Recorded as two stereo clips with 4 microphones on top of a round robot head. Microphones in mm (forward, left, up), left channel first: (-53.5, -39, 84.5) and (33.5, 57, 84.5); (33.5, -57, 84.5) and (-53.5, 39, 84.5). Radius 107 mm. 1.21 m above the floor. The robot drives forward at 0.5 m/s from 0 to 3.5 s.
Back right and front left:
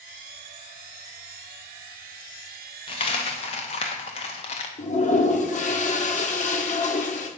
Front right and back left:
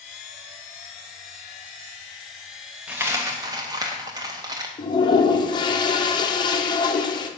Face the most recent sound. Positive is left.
turn(degrees=-105)